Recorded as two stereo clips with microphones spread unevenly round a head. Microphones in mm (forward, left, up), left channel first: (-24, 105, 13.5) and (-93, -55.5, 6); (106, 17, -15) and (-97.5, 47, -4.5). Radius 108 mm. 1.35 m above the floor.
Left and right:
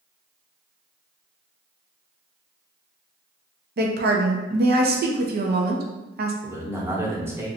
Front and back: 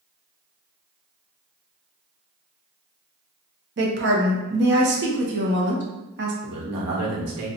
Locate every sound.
3.8 s a woman speaking: 145° right, 0.8 m
6.4 s a man speaking: 170° left, 1.2 m